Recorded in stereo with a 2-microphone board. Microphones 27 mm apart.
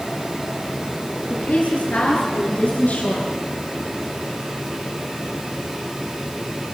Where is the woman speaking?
70° left (ahead or behind), 9.5 m; by 3.3 s 65° left (ahead or behind), 8 m.